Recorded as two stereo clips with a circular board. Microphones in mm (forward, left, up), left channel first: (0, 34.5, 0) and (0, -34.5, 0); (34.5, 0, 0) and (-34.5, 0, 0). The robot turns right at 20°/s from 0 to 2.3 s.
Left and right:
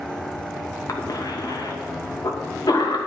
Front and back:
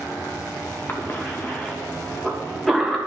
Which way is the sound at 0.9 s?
60° left.